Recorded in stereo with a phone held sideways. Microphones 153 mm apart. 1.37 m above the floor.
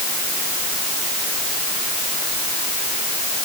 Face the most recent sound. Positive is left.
No sound to turn to.